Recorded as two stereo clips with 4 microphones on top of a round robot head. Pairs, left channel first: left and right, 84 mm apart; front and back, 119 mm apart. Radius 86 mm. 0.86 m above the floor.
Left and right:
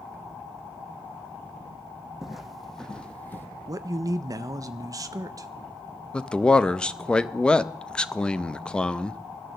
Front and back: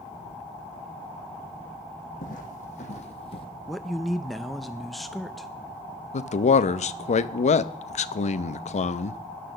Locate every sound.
2.2 s footsteps: 5° right, 1.8 m; by 3.5 s 30° left, 1.3 m
3.7 s a man speaking: 90° right, 0.5 m
6.1 s a man speaking: 10° left, 0.6 m